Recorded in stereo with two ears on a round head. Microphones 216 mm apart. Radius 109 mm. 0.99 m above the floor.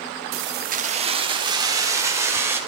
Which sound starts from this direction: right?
Keys jangling, at 0.3 s.